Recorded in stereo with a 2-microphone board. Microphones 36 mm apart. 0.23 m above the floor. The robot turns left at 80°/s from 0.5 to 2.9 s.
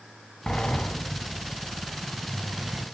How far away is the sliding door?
About 1.0 m.